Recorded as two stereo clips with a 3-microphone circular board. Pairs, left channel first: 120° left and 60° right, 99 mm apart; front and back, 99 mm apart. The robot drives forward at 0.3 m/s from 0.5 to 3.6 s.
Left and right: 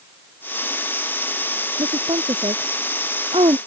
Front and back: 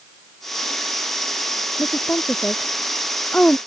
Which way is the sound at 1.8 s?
75° right.